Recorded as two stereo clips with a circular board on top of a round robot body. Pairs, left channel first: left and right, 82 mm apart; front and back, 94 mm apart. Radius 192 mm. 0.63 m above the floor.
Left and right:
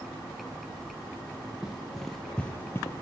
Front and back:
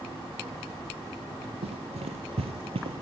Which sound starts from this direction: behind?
Running footsteps, at 1.6 s.